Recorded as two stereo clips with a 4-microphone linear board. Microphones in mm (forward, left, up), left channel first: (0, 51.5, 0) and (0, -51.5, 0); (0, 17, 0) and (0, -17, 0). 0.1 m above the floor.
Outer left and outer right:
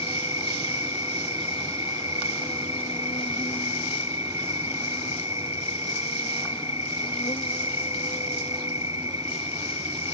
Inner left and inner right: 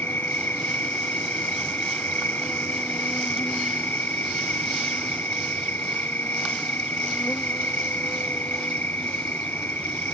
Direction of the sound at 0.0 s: 70° left (ahead or behind).